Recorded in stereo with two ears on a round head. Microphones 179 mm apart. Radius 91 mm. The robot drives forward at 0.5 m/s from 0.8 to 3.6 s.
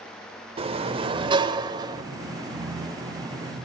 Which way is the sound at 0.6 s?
30° right (ahead or behind).